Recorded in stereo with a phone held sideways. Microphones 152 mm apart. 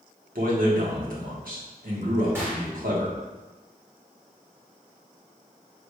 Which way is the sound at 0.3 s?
70° right (ahead or behind).